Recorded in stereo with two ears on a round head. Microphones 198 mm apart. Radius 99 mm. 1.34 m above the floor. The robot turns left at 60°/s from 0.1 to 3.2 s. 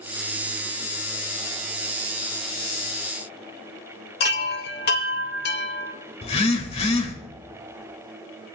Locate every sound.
4.2 s a chime: 45° left (ahead or behind), 1.5 m
6.2 s a phone buzzing: 30° left (ahead or behind), 1.9 m